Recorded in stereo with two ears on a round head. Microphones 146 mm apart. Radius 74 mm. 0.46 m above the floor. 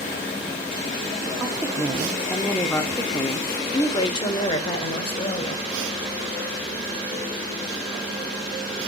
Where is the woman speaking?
20° right (ahead or behind), 1.0 m; by 5.6 s 40° left (ahead or behind), 2.5 m.